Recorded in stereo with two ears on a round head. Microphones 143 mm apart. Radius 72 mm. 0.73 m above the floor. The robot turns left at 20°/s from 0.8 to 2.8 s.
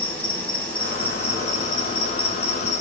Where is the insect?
170° left, 5 m; by 2.8 s 130° left, 5 m.